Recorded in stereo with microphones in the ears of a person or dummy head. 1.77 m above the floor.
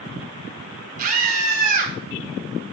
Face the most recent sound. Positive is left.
turn(degrees=-50)  # may be behind; listen again after turning